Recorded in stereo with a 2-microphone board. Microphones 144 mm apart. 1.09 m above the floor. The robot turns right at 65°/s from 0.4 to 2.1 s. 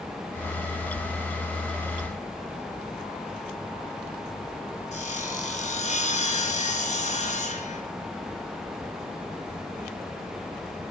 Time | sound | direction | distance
4.9 | sawing | 50° left (ahead or behind) | 1.4 m